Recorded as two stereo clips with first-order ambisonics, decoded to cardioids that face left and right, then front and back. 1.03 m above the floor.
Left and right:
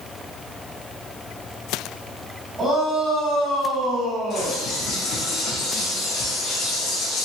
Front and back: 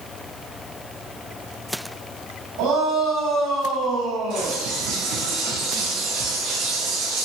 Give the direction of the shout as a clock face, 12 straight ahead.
5 o'clock.